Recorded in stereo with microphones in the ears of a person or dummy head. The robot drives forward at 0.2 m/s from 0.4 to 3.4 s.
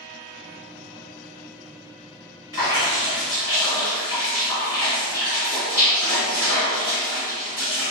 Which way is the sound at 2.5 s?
15° left (ahead or behind).